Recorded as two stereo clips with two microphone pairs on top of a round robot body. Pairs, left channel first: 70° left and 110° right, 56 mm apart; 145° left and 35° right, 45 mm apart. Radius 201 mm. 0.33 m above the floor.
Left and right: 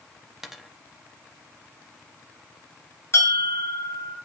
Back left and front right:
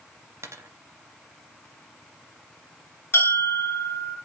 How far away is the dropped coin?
About 0.9 m.